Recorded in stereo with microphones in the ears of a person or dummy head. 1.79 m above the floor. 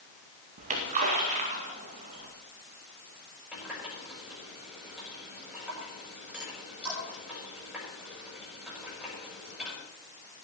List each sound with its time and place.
0.6 s a splash: 45° right (ahead or behind), 2 m
3.5 s a running tap: 10° right (ahead or behind), 7 m